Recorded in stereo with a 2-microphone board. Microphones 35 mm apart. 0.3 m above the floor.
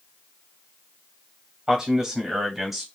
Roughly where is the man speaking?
Right.